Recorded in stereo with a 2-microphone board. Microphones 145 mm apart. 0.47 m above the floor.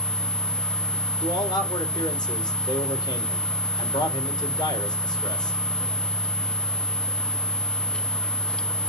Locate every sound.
1.2 s a man speaking: 30° left (ahead or behind), 1.9 m